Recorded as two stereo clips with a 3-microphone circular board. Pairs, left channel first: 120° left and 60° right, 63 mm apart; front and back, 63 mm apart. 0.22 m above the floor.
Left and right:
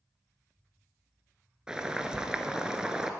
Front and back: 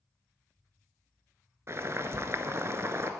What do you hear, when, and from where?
1.7 s boiling: 140° right, 0.7 m